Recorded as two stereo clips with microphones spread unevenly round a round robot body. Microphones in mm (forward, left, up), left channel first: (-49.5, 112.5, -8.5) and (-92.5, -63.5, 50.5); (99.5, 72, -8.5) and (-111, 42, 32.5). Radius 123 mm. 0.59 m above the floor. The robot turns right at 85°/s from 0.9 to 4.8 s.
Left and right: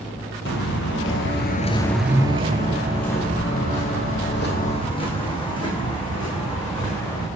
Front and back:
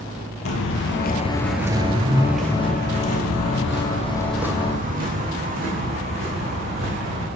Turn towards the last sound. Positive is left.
turn(degrees=145)